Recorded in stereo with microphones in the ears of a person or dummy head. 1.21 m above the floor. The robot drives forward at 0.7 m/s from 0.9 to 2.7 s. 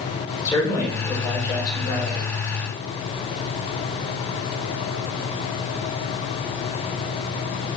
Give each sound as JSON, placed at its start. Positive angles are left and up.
{"t": 0.5, "sound": "a man speaking", "side_deg": 25, "distance_m": 3.5}